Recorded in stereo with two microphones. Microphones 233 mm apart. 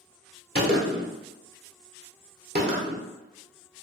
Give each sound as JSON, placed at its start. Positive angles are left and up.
{"t": 0.6, "sound": "a gunshot", "side_deg": -45, "distance_m": 0.9}